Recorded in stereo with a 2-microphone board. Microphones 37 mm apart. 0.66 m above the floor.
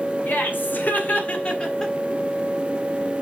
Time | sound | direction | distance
0.3 | laughter | 65° left (ahead or behind) | 2.5 m